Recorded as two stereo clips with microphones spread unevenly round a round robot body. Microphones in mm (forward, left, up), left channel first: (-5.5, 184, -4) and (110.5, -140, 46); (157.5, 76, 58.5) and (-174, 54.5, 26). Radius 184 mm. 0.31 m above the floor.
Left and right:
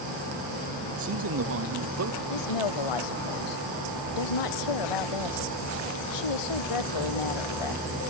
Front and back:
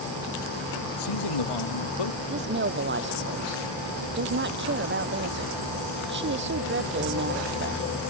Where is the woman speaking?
125° left.